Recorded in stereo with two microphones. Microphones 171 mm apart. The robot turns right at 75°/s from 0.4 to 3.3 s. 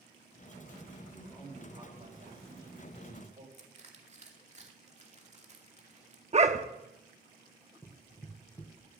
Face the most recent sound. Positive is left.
turn(degrees=20)  # may be behind; listen again after turning